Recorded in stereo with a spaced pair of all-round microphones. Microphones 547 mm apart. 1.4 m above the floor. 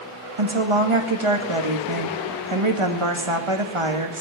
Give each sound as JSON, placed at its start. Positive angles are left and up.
{"t": 0.4, "sound": "a woman speaking", "side_deg": -60, "distance_m": 1.9}